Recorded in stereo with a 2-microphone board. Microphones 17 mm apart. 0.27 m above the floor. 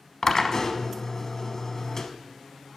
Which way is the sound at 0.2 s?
35° left (ahead or behind).